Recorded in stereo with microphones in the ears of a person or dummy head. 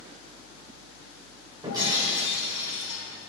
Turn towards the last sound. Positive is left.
turn(degrees=-20)  # may be behind; listen again after turning